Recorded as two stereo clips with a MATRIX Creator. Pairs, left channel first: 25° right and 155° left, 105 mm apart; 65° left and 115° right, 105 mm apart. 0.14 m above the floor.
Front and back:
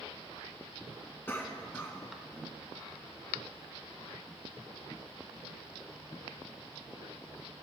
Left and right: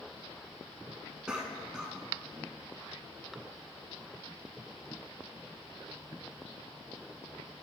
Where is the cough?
45° right, 1.1 m.